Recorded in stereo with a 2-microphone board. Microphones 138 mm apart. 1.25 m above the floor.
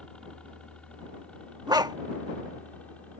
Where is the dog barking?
30° right (ahead or behind).